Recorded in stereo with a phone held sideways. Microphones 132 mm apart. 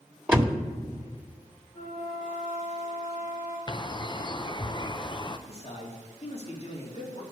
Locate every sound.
0.3 s a door slam: 10° right (ahead or behind), 1.4 m
1.7 s a flute: 20° left (ahead or behind), 4 m
3.7 s a bird: 35° left (ahead or behind), 0.6 m
5.5 s a man speaking: 50° left (ahead or behind), 2.5 m